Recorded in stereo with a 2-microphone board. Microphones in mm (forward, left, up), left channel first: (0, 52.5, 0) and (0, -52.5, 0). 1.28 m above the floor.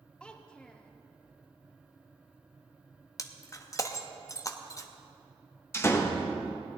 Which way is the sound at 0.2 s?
10° left (ahead or behind).